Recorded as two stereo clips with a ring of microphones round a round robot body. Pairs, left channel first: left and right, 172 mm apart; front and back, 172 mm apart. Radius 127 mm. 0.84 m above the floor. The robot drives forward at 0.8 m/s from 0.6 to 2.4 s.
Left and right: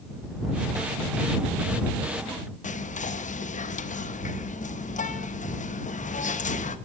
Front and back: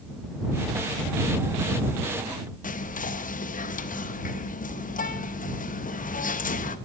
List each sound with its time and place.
2.6 s whispering: 45° left, 0.7 m